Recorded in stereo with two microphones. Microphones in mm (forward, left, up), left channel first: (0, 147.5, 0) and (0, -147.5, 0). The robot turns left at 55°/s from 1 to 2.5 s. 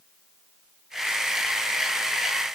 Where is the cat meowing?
I don't hear a cat meowing.